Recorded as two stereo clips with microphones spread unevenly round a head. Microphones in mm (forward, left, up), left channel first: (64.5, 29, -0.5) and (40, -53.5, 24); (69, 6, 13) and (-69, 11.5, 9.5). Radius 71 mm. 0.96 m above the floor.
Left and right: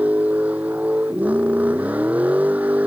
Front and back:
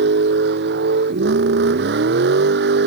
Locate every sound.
0.0 s a vehicle: 175° left